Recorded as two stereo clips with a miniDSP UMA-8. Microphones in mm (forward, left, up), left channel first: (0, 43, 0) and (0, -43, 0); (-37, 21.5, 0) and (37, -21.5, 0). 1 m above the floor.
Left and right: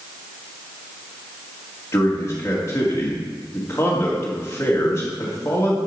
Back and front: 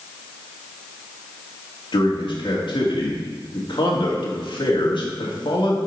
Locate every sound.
1.9 s a man speaking: 150° left, 1.7 m